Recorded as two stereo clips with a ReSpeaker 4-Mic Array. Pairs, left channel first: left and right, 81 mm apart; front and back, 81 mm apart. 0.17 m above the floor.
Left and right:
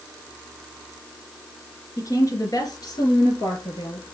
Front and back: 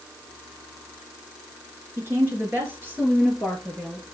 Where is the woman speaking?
125° left, 3 m; by 4.1 s 105° left, 4 m.